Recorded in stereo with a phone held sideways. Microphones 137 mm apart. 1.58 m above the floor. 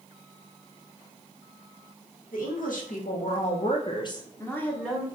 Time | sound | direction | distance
2.3 | a woman speaking | 85° left | 1.3 m